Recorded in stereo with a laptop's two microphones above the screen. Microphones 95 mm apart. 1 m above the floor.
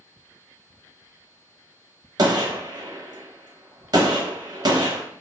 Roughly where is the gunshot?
Right.